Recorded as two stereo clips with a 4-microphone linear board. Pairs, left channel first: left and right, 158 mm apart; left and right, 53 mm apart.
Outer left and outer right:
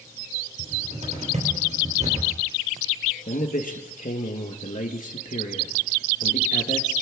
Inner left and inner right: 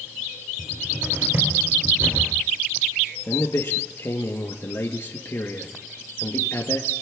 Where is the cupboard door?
50° right (ahead or behind), 3.5 m.